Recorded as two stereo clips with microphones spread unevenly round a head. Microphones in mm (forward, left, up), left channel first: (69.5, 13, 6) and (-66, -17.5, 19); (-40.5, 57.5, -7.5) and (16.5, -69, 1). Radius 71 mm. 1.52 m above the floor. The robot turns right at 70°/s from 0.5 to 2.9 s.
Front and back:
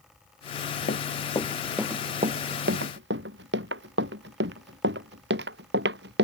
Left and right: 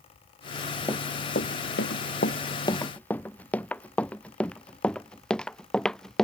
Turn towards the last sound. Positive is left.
turn(degrees=-160)